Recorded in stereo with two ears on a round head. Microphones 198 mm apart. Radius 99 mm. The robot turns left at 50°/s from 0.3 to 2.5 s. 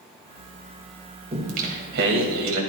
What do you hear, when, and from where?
1.3 s singing: 30° right, 2.5 m; by 2.6 s 90° right, 2.5 m